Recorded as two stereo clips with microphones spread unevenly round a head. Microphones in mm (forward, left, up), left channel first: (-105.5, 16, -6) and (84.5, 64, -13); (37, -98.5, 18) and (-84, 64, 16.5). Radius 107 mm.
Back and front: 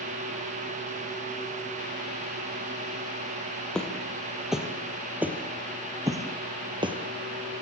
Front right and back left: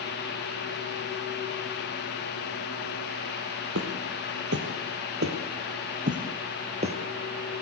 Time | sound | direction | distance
3.8 | footsteps | 110° left | 3 m